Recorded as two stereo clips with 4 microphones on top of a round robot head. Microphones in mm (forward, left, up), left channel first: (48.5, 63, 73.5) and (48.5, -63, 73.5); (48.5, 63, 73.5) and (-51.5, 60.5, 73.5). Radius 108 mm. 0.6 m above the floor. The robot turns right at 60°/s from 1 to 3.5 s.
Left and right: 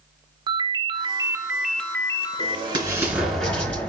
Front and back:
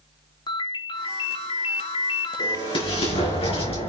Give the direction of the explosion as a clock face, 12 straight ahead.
2 o'clock.